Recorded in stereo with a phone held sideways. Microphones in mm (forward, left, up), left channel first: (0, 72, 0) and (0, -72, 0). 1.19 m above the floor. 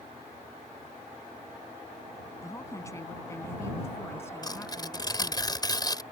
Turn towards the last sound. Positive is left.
turn(degrees=30)  # may be behind; listen again after turning